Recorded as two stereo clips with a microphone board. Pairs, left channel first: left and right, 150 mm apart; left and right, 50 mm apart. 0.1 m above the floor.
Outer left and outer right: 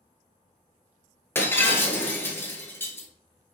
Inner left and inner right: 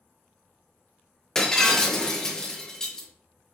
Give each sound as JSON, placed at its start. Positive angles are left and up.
{"t": 1.4, "sound": "breaking glass", "side_deg": 15, "distance_m": 0.9}